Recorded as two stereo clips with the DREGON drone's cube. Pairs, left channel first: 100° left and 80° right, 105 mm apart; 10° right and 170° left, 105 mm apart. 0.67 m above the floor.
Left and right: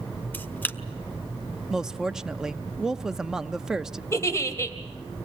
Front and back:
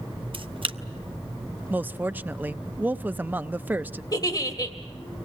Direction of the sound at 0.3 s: 165° left.